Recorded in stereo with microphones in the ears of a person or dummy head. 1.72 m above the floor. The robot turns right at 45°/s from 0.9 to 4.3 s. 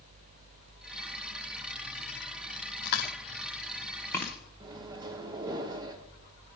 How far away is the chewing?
About 1.1 m.